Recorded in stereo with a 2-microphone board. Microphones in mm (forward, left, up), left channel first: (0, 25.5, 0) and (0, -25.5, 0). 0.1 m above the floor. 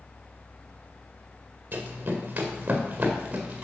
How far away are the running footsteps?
About 2.0 m.